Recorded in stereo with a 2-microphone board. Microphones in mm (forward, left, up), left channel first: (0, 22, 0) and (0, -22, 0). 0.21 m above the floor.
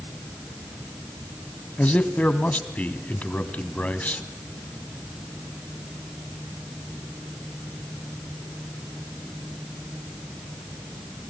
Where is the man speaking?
35° left (ahead or behind), 1.3 m.